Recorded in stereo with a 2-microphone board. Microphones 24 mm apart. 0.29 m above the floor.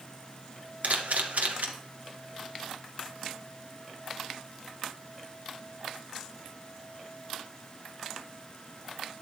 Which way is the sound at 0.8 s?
75° right (ahead or behind).